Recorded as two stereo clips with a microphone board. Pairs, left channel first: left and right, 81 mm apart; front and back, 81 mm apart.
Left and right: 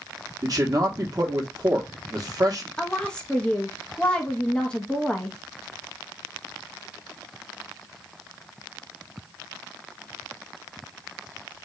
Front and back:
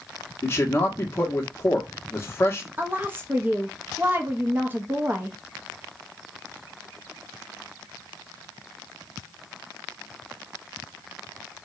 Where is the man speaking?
55° right, 0.9 m.